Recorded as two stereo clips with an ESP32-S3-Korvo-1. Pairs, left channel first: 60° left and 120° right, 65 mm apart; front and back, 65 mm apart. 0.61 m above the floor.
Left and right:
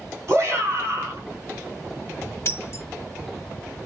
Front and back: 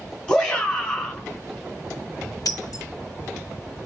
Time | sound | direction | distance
0.3 | a shout | 75° right | 4 m
2.5 | breaking glass | 15° left | 1.5 m